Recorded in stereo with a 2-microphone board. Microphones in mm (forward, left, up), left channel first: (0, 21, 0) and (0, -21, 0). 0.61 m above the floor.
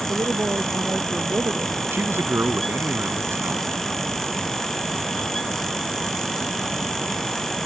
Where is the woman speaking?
60° right (ahead or behind).